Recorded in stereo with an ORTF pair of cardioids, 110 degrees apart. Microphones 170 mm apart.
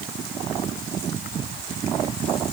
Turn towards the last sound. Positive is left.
No sound to turn to.